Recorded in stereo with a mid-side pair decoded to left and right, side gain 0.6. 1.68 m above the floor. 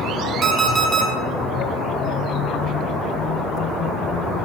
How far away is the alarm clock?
About 6 m.